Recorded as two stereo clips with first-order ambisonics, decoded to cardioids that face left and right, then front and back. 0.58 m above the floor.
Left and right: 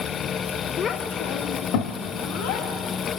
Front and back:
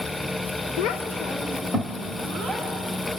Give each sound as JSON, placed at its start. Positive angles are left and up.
{"t": 0.8, "sound": "a child speaking", "azimuth_deg": 20, "distance_m": 0.8}